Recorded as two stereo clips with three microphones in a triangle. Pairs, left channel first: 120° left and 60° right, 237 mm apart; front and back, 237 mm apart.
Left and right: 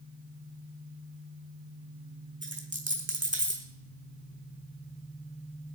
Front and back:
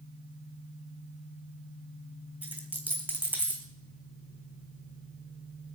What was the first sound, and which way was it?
A dropped coin, 95° right.